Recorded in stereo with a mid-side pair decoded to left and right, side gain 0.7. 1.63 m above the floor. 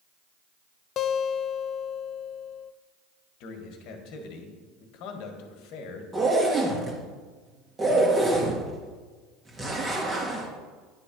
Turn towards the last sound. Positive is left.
turn(degrees=-20)